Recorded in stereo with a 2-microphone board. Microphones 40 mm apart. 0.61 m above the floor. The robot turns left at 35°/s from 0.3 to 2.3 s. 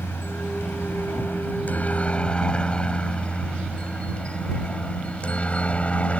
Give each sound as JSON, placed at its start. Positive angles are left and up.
{"t": 0.0, "sound": "a helicopter", "side_deg": 70}